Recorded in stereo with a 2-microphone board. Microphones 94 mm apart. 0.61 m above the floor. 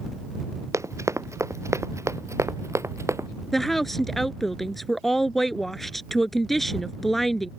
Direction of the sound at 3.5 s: Centre (ahead or behind).